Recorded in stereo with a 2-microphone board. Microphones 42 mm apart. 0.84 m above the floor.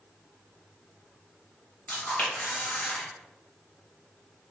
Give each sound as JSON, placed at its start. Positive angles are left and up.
{"t": 1.9, "sound": "a camera shutter", "side_deg": 35, "distance_m": 1.5}